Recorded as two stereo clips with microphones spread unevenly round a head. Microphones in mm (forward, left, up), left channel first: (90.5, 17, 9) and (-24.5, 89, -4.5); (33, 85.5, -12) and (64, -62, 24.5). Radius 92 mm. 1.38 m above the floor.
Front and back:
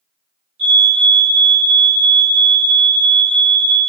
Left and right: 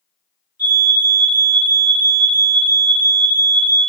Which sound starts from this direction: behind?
A fire alarm, at 0.6 s.